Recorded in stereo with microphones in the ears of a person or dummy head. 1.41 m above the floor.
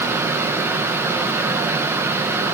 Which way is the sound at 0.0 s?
10° right (ahead or behind).